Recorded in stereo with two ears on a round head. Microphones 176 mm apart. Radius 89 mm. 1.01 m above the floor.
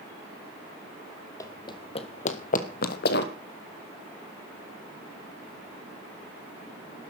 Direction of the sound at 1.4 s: 20° left (ahead or behind).